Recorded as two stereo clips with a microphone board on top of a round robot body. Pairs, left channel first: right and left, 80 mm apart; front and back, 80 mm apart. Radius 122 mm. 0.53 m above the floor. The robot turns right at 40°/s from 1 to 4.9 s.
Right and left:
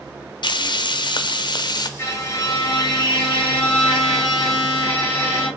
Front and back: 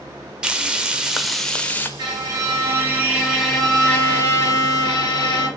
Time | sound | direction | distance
0.4 | frying | 100° right | 0.7 m
2.0 | a violin | 145° right | 2 m